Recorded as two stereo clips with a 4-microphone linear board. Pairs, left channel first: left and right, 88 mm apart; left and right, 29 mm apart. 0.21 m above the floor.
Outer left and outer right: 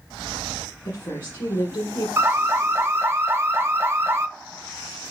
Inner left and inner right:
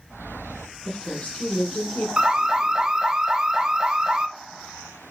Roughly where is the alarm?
Right.